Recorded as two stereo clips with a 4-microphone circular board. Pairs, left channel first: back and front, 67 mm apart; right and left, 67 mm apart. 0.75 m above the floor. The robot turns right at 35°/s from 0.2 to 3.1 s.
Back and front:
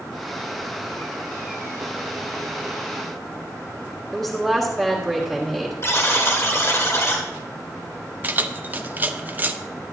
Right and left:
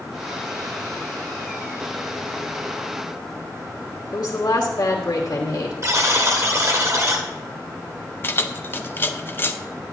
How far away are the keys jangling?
About 0.5 m.